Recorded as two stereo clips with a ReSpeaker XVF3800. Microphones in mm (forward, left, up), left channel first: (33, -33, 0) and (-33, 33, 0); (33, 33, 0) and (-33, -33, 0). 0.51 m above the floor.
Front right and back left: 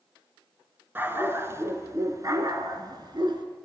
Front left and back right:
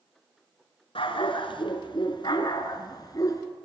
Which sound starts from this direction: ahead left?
A dog barking, at 0.9 s.